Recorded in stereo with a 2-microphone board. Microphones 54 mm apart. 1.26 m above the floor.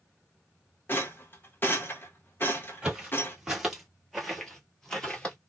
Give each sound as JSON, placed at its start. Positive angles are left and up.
{"t": 0.9, "sound": "a rattle", "side_deg": 40, "distance_m": 0.8}
{"t": 2.8, "sound": "footsteps", "side_deg": -15, "distance_m": 1.6}